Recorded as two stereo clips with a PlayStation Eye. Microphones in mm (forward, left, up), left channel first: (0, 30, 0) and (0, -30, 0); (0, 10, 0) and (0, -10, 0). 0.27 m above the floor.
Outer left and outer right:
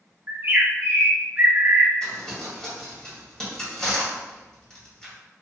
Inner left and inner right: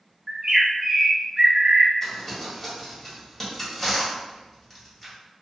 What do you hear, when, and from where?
0.3 s a bird: 35° right (ahead or behind), 0.6 m
2.0 s crumpling: 10° left (ahead or behind), 1.5 m